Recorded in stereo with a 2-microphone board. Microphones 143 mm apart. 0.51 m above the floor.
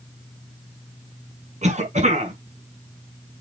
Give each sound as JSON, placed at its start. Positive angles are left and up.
{"t": 1.6, "sound": "a cough", "side_deg": -55, "distance_m": 4.5}